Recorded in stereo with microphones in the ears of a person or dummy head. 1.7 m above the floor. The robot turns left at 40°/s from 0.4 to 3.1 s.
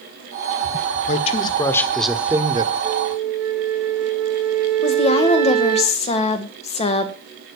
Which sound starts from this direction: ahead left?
A man speaking, at 1.1 s.